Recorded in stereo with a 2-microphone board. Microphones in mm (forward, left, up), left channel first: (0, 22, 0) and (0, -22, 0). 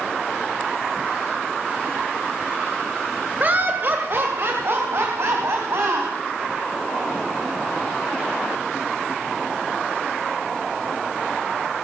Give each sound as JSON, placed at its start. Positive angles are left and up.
{"t": 3.4, "sound": "laughter", "side_deg": -40, "distance_m": 1.3}